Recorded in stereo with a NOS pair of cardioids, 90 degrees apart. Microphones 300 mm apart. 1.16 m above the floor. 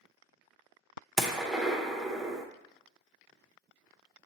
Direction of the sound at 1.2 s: Straight ahead.